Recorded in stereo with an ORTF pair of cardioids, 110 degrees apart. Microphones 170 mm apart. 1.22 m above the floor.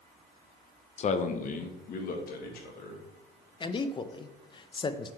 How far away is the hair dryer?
I don't hear a hair dryer.